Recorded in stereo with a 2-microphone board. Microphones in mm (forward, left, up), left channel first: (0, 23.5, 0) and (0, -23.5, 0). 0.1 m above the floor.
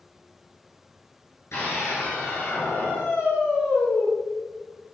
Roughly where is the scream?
Left.